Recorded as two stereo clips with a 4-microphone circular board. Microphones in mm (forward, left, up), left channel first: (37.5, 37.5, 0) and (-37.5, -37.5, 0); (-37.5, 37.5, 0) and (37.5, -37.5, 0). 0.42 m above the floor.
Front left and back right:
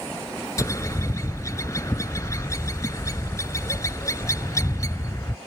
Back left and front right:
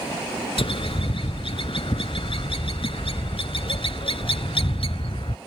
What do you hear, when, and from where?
0.6 s a bird: 105° left